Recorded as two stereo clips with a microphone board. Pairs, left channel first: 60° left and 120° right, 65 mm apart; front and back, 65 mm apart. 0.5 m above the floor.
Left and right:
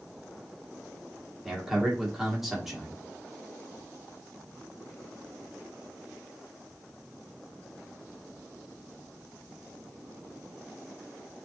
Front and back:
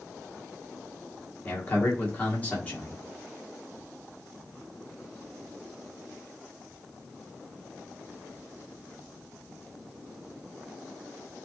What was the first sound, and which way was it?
A man speaking, 40° right.